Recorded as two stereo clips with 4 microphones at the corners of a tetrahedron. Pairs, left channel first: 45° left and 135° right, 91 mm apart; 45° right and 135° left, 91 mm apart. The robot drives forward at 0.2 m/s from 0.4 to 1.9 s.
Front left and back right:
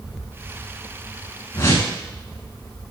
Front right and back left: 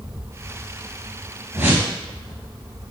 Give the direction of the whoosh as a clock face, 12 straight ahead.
9 o'clock.